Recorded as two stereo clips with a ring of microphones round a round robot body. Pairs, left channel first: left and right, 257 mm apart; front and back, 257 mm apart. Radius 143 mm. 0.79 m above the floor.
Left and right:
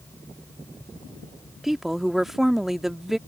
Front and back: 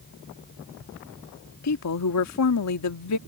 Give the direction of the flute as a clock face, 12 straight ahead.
No flute in this recording.